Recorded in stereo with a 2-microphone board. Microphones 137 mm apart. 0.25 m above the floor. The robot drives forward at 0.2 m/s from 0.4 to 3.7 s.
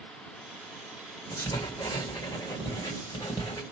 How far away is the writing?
About 1.6 m.